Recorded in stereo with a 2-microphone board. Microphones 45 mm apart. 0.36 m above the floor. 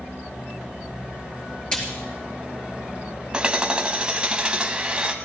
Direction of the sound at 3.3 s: 20° right (ahead or behind).